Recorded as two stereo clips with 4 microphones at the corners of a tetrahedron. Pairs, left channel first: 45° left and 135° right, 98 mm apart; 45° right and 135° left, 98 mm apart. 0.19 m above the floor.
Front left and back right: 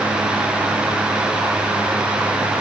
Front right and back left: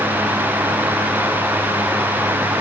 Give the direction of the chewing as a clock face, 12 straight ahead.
I don't hear chewing.